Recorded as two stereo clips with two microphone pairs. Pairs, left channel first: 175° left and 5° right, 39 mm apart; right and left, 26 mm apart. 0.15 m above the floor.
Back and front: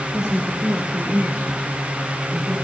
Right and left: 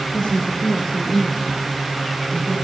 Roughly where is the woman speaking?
Right.